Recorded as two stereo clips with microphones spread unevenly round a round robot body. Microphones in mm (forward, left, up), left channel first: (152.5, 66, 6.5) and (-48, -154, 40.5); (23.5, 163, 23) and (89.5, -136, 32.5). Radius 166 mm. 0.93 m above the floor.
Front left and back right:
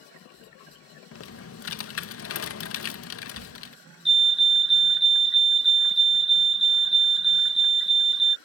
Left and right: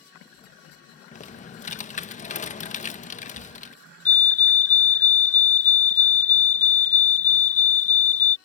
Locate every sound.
1.1 s typing on a keyboard: 45° left
4.0 s a fire alarm: 125° left